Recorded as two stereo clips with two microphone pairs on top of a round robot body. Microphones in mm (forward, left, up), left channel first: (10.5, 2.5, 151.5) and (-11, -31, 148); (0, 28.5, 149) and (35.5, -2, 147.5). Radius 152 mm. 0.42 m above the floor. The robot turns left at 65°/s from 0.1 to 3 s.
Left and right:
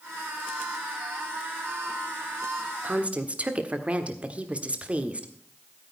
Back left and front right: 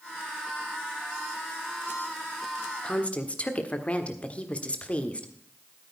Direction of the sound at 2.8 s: 155° right.